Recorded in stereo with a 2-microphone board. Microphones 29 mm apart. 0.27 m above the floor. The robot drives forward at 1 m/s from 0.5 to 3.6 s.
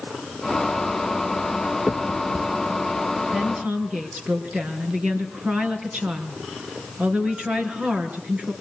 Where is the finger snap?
45° right (ahead or behind), 2.5 m; by 2.8 s 60° right (ahead or behind), 1.9 m.